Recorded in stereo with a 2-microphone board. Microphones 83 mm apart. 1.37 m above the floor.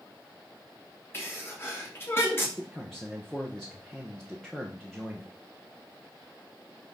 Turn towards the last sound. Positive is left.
turn(degrees=5)  # may be behind; listen again after turning